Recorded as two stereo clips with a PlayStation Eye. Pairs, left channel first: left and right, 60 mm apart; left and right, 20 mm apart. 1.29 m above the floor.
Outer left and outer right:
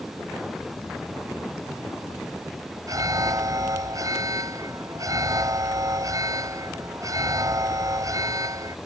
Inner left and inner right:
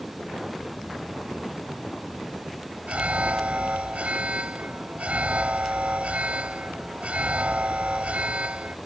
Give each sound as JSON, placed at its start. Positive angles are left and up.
{"t": 2.9, "sound": "an alarm", "side_deg": -70}